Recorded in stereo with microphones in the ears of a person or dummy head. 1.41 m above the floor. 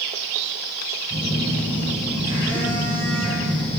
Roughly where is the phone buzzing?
Left.